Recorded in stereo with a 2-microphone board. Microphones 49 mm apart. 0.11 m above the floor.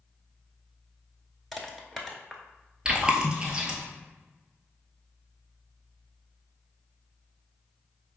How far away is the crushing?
About 0.7 m.